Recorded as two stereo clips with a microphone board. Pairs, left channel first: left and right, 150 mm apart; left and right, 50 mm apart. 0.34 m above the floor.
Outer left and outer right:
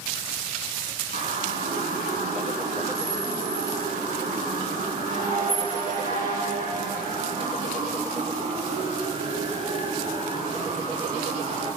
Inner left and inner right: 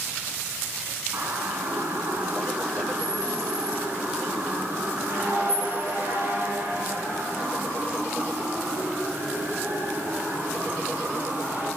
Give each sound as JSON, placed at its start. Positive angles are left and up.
{"t": 1.1, "sound": "a siren", "side_deg": -70, "distance_m": 5.5}